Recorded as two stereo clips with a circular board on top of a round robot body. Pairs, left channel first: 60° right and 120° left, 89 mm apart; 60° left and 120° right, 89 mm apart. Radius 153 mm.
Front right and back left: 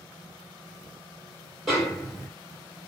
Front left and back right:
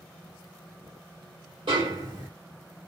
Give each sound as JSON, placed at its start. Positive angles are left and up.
{"t": 1.7, "sound": "a snare drum", "azimuth_deg": -150, "distance_m": 1.9}